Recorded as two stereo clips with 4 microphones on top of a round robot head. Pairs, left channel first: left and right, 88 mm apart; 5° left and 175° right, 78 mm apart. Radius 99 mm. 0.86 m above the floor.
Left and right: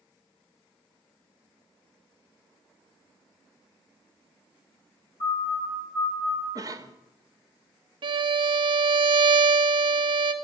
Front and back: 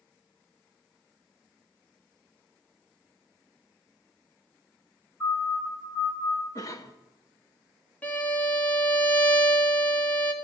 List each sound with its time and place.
5.2 s a siren: 30° left, 9.5 m; by 6.5 s 25° left, 9 m
6.5 s a cough: 40° right, 1.5 m
8.0 s a violin: 65° right, 1.5 m